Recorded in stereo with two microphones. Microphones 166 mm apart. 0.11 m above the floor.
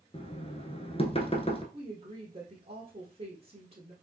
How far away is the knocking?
About 0.9 m.